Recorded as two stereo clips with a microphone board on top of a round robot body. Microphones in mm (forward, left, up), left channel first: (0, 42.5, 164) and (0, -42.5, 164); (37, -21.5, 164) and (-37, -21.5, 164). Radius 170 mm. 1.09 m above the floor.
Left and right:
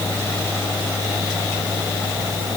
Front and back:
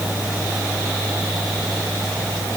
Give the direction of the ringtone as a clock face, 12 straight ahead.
I don't hear a ringtone.